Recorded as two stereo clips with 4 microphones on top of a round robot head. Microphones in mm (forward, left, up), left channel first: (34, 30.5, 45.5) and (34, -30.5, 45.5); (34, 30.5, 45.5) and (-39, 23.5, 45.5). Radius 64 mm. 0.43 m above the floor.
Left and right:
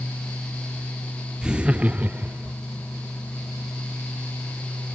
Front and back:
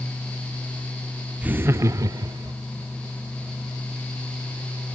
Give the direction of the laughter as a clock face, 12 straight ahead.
5 o'clock.